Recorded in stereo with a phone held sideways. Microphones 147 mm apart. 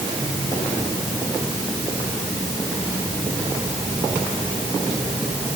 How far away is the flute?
I don't hear a flute.